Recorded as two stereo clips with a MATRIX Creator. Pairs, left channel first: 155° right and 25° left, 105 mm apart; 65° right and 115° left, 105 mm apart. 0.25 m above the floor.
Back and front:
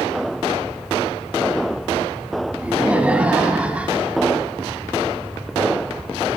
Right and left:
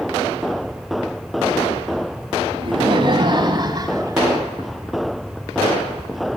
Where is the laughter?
95° left, 2 m; by 4.2 s 90° left, 1.6 m.